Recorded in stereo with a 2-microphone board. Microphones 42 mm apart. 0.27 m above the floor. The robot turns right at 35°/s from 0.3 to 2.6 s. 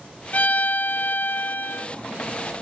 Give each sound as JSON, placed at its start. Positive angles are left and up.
{"t": 0.3, "sound": "a violin", "azimuth_deg": 60, "distance_m": 0.5}